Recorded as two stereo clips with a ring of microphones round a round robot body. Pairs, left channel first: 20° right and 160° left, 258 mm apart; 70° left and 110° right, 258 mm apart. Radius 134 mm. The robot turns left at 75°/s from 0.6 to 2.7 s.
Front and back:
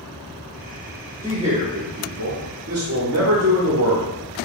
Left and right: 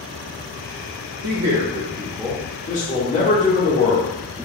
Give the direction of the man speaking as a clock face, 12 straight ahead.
4 o'clock.